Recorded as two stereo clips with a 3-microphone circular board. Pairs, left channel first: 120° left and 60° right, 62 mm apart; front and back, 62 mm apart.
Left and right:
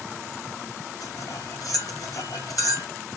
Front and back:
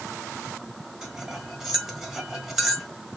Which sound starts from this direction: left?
Cutlery clinking, at 1.0 s.